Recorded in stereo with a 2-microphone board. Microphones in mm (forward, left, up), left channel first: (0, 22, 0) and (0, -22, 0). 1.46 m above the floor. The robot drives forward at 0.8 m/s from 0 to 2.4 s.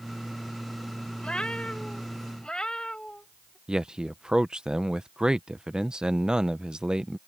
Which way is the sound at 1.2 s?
25° left (ahead or behind).